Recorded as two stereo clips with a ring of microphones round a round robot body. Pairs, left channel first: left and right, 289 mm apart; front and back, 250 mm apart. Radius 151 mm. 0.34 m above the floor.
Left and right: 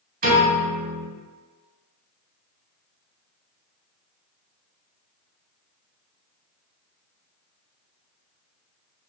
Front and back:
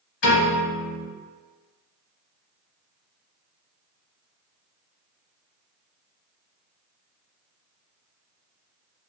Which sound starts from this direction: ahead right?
A piano, at 0.2 s.